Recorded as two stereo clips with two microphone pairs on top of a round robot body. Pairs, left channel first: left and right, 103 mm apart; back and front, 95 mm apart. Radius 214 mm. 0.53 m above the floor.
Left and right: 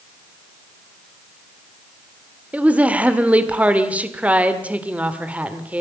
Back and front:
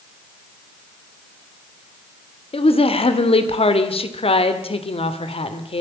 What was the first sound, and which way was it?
A woman speaking, 165° right.